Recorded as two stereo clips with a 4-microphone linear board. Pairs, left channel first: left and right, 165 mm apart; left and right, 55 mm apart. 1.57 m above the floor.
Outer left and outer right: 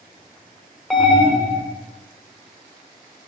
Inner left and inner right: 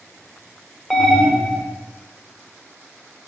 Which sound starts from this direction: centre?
An alarm, at 0.9 s.